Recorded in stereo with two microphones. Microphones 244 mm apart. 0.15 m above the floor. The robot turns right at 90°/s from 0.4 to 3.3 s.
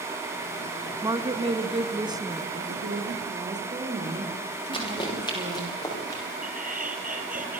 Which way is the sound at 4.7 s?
20° left (ahead or behind).